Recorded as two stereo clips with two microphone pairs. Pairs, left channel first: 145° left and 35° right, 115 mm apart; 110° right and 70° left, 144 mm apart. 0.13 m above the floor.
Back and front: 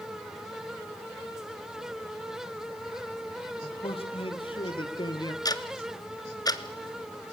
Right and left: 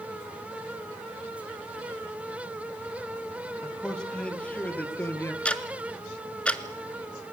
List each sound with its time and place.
3.6 s a man speaking: 165° left, 4 m; by 5.3 s 175° right, 2.5 m
5.5 s ticking: 170° left, 1.3 m